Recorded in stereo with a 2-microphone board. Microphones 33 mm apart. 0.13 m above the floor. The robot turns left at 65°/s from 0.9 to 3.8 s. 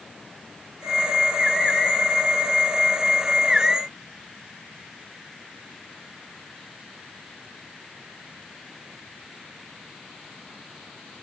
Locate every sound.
Only background noise.